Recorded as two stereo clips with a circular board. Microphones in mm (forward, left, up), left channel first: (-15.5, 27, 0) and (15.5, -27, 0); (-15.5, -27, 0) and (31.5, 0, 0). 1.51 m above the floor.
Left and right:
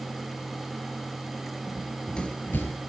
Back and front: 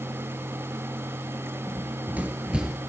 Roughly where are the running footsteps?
Ahead left.